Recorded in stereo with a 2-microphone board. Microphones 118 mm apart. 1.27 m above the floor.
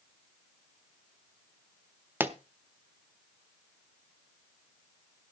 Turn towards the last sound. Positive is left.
turn(degrees=-15)  # may be behind; listen again after turning